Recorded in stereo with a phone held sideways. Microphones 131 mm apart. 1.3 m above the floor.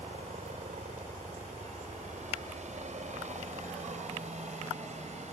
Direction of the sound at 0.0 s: 65° right (ahead or behind).